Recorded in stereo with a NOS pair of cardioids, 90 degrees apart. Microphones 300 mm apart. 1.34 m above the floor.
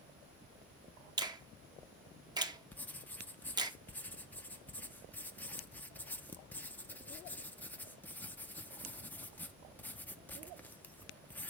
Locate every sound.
1.2 s a finger snap: 15° right, 0.8 m
2.7 s writing: 5° left, 0.6 m